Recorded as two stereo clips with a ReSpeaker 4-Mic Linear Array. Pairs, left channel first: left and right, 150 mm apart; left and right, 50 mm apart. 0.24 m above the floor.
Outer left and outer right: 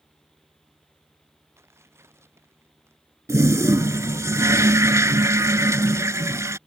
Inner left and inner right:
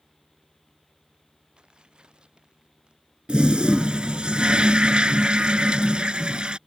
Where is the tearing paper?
15° right (ahead or behind).